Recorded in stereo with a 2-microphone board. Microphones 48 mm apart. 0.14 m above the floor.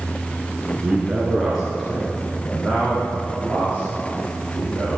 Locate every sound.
0.8 s a man speaking: 25° right (ahead or behind), 1.5 m; by 5.0 s 35° left (ahead or behind), 6 m